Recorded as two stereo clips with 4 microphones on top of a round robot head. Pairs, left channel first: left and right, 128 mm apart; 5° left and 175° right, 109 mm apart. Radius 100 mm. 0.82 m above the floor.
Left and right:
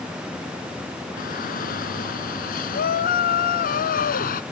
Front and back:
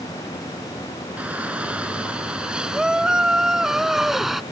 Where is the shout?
105° left; by 4.4 s 95° left.